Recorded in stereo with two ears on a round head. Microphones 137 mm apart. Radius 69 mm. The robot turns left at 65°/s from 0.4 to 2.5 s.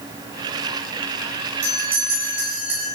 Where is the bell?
40° right, 10 m; by 2.9 s 100° right, 10 m.